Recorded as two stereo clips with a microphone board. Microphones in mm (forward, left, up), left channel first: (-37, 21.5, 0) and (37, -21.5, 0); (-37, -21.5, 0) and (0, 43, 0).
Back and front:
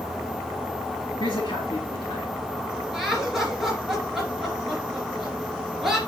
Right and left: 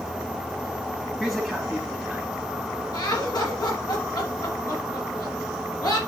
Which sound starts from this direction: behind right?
Laughter, at 2.9 s.